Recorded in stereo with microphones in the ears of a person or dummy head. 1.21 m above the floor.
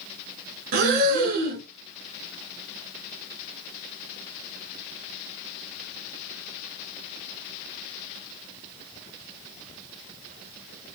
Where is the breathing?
50° right (ahead or behind), 1.8 m.